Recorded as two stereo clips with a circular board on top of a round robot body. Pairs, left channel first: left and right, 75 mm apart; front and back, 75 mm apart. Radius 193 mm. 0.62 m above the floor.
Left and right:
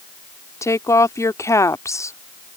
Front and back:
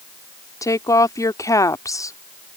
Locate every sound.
0.6 s a woman speaking: 40° left